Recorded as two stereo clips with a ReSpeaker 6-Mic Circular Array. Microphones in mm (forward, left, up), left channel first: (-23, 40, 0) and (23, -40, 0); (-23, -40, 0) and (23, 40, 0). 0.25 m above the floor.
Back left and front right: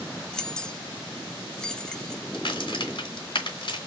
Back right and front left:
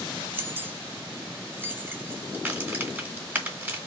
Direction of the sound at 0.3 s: 50° left.